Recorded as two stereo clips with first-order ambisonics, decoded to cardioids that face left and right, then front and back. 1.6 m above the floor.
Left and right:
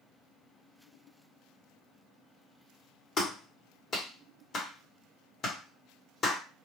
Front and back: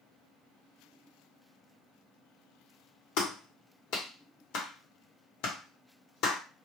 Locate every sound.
3.2 s a clap: 25° left, 0.9 m